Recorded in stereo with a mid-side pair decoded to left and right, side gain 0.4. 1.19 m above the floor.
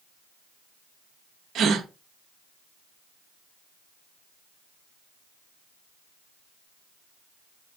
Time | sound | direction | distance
1.6 | a gasp | 70° right | 0.8 m